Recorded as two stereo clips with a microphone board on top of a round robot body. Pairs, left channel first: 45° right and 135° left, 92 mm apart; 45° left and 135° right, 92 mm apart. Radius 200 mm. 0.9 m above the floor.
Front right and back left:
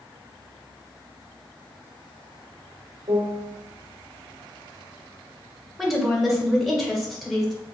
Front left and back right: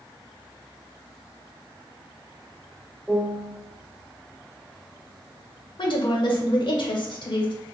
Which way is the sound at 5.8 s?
45° left.